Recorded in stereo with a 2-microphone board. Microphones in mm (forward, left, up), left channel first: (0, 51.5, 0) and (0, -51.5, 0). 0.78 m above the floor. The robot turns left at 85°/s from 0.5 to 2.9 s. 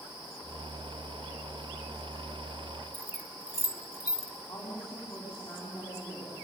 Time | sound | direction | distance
2.9 | keys jangling | 25° right (ahead or behind) | 1.2 m
4.5 | a woman speaking | 40° left (ahead or behind) | 6 m